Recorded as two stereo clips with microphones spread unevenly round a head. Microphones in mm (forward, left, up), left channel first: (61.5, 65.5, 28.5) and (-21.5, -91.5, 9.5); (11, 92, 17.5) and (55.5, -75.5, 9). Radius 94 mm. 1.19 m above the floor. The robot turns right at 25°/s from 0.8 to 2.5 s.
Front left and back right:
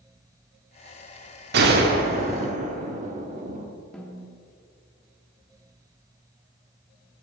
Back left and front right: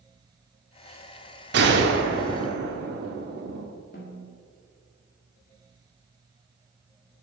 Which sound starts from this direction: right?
A gunshot, at 1.5 s.